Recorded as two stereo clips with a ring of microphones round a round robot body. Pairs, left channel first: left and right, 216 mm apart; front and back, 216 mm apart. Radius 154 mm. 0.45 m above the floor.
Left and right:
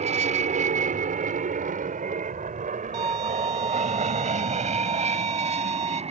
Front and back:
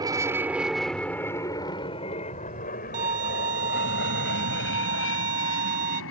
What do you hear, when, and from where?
0.0 s an aircraft: 120° right; by 6.1 s 30° right
2.9 s a violin: 150° right